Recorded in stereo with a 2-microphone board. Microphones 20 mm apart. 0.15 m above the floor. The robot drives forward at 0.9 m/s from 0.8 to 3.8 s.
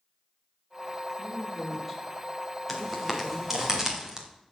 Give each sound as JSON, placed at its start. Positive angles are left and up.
{"t": 1.2, "sound": "a woman speaking", "side_deg": -5, "distance_m": 5.5}
{"t": 2.7, "sound": "footsteps", "side_deg": -5, "distance_m": 3.5}